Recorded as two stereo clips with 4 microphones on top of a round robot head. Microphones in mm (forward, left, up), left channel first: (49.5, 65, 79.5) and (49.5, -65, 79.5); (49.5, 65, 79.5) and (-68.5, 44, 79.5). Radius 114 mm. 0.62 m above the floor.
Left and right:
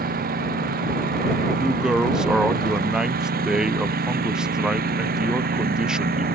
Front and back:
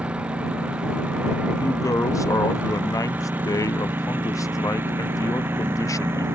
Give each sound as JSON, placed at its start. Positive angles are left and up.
{"t": 0.0, "sound": "a lawn mower", "azimuth_deg": -85}
{"t": 1.5, "sound": "a woman speaking", "azimuth_deg": -10}